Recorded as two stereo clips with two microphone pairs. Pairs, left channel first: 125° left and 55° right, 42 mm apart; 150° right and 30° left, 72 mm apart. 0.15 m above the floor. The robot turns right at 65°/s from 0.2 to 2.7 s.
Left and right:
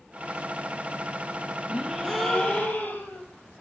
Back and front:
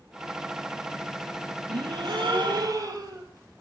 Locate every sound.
1.7 s a gasp: 5° left, 2 m; by 3.2 s 70° left, 2 m